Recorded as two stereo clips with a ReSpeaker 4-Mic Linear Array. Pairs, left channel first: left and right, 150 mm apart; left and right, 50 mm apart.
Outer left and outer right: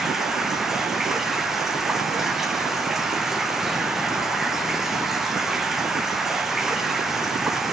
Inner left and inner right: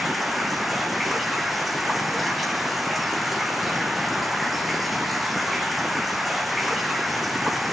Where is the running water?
Centre (ahead or behind), 1.8 m.